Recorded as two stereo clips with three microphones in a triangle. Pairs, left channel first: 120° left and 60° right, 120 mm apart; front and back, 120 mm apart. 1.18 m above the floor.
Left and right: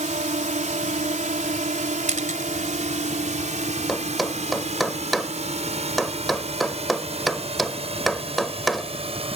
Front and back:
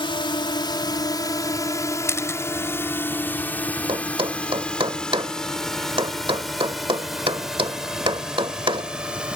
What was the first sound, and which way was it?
A drone, 45° right.